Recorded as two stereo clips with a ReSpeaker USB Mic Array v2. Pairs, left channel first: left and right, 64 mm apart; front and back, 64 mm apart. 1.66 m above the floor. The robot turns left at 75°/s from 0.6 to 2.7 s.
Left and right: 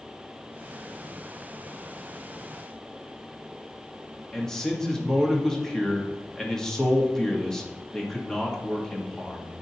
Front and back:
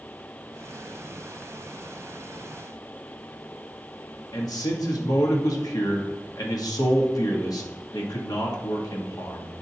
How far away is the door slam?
No door slam in this recording.